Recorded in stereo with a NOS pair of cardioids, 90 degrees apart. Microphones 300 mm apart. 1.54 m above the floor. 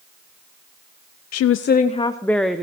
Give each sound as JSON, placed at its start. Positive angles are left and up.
{"t": 1.3, "sound": "a woman speaking", "azimuth_deg": 60, "distance_m": 0.5}